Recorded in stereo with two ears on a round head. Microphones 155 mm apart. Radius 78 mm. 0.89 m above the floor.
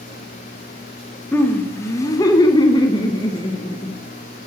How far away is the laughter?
About 1.0 m.